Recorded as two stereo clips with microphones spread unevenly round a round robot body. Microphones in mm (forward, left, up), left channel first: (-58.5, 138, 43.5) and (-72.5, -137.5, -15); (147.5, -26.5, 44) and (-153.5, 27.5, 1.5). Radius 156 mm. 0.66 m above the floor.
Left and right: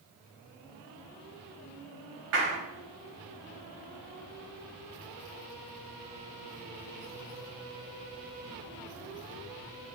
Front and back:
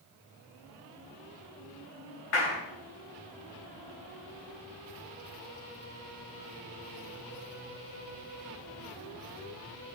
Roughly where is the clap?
Ahead right.